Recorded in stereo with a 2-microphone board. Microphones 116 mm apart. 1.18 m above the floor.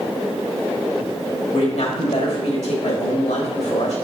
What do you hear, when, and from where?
1.5 s a man speaking: 85° left, 2 m